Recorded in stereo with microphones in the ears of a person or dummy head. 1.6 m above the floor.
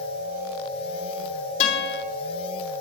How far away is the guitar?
About 2.5 m.